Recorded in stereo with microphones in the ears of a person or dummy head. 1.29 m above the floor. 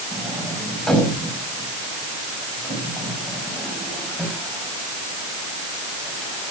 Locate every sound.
0.1 s a sliding door: centre (ahead or behind), 5.5 m